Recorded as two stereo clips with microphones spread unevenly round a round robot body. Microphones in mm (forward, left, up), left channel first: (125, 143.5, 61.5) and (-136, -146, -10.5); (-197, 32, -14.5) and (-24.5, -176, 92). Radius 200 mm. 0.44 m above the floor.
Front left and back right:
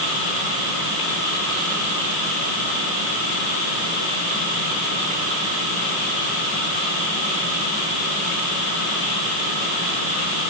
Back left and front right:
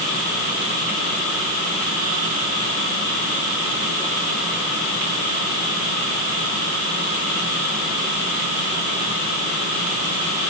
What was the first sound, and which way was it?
Only background noise.